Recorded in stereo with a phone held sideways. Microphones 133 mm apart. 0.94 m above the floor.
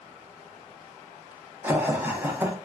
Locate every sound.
1.6 s laughter: 15° right (ahead or behind), 0.6 m